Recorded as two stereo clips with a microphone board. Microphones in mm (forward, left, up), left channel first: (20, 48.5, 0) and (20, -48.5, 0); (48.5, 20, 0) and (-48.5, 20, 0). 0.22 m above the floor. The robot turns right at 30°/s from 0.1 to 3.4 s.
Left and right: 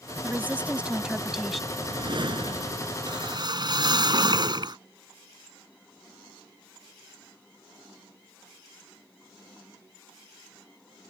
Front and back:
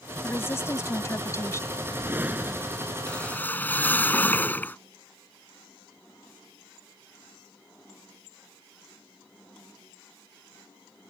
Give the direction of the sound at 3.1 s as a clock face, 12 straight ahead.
3 o'clock.